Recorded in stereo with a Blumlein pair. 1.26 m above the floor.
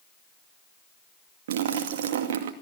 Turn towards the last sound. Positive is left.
turn(degrees=-55)